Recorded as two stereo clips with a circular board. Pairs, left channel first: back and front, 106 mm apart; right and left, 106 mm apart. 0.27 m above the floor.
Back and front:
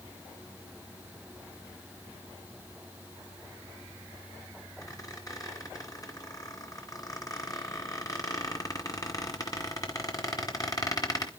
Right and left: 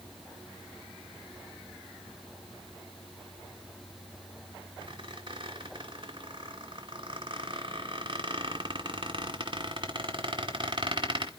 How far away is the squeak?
About 2.5 m.